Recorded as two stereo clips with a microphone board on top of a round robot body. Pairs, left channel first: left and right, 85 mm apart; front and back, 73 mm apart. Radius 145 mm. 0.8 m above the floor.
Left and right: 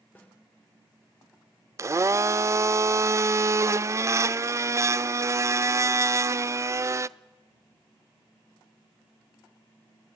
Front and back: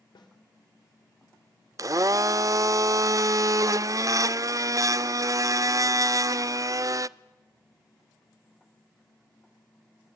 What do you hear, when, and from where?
0.1 s a snare drum: 20° left, 3 m
1.8 s a blender: 140° right, 0.5 m